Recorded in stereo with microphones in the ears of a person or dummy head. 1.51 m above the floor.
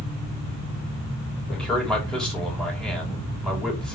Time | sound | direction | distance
1.5 | a man speaking | 5° left (ahead or behind) | 4.5 m